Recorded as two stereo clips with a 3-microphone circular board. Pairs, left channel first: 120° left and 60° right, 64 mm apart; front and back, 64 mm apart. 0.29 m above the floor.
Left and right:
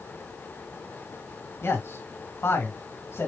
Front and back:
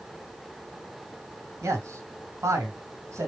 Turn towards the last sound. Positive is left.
turn(degrees=160)